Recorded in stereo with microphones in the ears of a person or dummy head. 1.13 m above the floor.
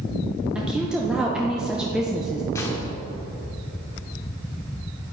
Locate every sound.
0.6 s a woman speaking: centre (ahead or behind), 0.7 m
2.5 s a gunshot: 10° left (ahead or behind), 1.0 m